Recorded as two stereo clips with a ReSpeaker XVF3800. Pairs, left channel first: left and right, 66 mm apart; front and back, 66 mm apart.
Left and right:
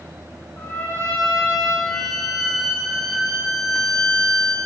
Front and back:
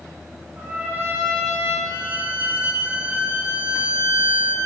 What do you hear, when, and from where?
0.6 s a trumpet: 125° left, 1.4 m
1.9 s a violin: 175° left, 0.5 m